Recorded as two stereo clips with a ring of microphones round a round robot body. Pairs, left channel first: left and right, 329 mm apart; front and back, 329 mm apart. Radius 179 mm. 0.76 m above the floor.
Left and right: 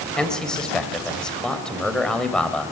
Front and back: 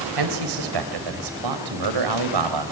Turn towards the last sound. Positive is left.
turn(degrees=180)